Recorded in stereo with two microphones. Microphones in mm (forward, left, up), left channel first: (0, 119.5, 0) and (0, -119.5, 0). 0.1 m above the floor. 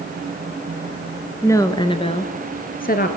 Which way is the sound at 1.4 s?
10° left (ahead or behind).